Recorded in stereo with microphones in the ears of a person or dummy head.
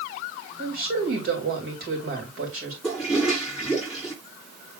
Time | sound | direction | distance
0.6 | a woman speaking | 55° right (ahead or behind) | 2.5 m
2.8 | a toilet flushing | 5° right (ahead or behind) | 3 m